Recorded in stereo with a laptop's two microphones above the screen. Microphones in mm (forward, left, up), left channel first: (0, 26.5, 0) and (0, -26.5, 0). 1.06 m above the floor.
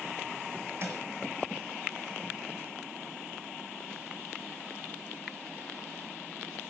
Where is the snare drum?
50° right (ahead or behind), 6.5 m.